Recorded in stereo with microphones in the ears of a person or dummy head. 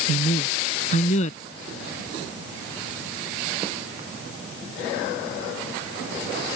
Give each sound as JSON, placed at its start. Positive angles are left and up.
{"t": 0.1, "sound": "a man speaking", "side_deg": 45}